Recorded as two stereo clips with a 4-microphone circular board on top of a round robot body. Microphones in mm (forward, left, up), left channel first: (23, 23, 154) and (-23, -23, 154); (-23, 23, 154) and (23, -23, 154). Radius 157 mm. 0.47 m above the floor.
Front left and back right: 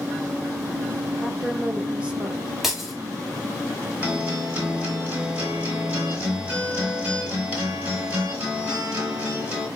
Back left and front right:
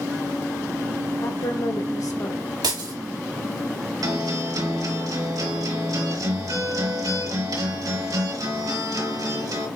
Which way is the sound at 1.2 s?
155° left.